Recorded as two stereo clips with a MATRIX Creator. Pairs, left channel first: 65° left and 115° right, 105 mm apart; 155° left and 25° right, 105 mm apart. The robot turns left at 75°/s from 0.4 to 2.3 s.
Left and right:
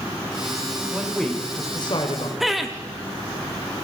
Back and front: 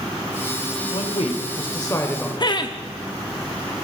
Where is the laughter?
160° left, 0.8 m.